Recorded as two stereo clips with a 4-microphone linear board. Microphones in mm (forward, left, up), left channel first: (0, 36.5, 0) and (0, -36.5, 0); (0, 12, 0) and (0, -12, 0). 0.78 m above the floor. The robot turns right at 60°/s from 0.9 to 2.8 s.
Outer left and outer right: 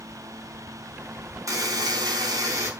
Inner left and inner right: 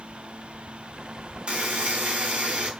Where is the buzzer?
125° right, 3.5 m; by 2.7 s 50° right, 3.5 m.